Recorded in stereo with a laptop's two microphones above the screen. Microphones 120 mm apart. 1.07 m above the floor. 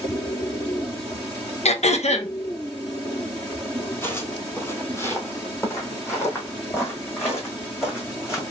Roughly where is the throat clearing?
Left.